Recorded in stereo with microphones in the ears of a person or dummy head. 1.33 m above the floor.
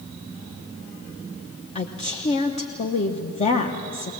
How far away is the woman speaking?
About 1.0 m.